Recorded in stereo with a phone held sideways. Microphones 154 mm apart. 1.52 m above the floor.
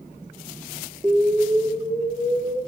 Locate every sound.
1.0 s an explosion: 15° right (ahead or behind), 4 m